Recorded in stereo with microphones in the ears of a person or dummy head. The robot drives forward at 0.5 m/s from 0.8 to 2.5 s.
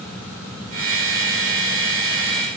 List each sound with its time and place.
Only background noise.